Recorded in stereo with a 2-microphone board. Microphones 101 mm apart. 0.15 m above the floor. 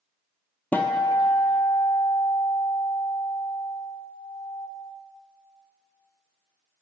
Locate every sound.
0.7 s a guitar: 20° left (ahead or behind), 0.7 m